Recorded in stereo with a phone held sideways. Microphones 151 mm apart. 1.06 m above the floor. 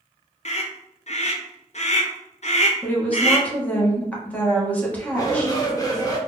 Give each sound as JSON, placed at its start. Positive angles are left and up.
{"t": 0.5, "sound": "a scream", "side_deg": 50, "distance_m": 0.5}
{"t": 2.8, "sound": "a woman speaking", "side_deg": 10, "distance_m": 1.1}
{"t": 5.1, "sound": "a shout", "side_deg": 25, "distance_m": 1.1}